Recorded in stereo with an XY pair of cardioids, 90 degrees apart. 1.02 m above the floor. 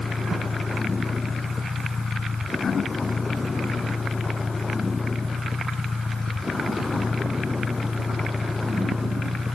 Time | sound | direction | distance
0.0 | a vehicle | 30° left | ?